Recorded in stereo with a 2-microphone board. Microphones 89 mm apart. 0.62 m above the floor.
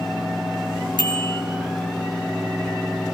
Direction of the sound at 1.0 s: 60° left (ahead or behind).